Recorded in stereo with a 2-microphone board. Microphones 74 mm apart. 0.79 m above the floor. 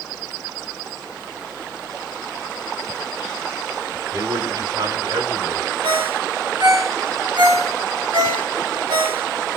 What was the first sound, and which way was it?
A man speaking, 75° right (ahead or behind).